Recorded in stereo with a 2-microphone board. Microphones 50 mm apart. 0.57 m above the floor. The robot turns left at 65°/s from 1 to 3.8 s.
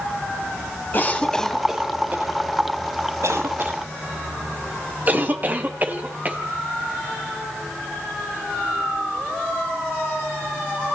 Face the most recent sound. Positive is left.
turn(degrees=-35)  # may be behind; listen again after turning